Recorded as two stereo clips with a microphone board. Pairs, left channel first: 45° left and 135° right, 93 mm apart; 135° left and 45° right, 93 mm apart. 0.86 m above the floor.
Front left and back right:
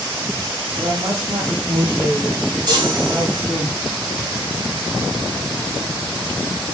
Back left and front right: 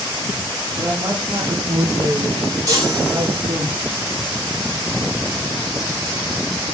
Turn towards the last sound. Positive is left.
turn(degrees=-95)